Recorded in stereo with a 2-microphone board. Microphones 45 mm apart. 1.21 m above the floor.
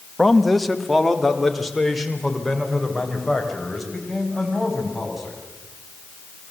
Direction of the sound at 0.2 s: Centre (ahead or behind).